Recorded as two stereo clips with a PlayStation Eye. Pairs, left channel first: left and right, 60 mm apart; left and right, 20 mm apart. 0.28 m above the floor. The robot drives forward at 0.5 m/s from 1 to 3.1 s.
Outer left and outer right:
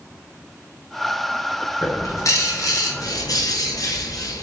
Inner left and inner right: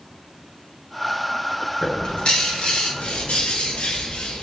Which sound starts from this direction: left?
A bird, at 1.8 s.